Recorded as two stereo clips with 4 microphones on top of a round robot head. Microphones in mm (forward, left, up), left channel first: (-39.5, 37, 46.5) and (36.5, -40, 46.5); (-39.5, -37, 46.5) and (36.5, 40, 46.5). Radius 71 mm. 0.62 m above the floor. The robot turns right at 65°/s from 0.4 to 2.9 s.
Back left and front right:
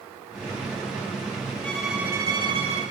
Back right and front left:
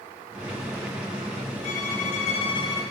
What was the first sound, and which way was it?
A violin, 145° right.